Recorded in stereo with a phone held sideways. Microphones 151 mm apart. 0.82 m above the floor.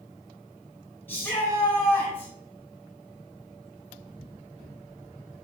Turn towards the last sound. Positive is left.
turn(degrees=15)  # may be behind; listen again after turning